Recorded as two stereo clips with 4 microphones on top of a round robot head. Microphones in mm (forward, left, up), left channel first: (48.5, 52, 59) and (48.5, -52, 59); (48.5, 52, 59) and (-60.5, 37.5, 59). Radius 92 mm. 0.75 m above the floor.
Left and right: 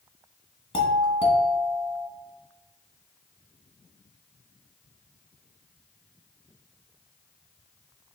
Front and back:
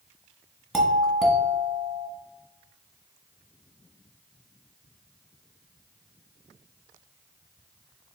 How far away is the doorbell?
About 1.3 m.